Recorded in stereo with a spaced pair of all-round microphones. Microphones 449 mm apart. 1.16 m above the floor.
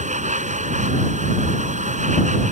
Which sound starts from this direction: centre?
A machine running, at 0.0 s.